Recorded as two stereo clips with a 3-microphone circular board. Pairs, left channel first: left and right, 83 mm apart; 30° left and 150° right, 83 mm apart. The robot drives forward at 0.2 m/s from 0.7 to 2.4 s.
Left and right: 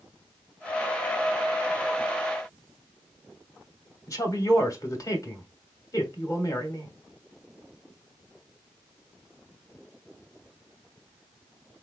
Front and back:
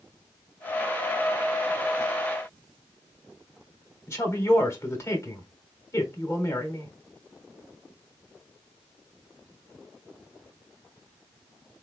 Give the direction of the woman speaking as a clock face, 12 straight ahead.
10 o'clock.